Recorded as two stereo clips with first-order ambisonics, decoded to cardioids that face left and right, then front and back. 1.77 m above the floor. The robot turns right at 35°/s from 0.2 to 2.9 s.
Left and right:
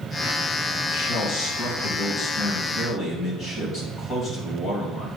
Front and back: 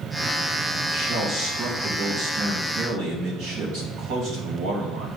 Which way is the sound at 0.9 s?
80° left.